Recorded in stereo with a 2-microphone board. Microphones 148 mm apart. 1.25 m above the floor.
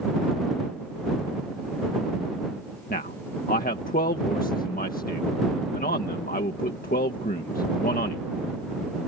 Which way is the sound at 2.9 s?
70° left (ahead or behind).